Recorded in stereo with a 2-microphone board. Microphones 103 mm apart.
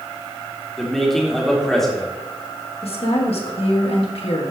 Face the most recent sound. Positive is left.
turn(degrees=70)  # may be behind; listen again after turning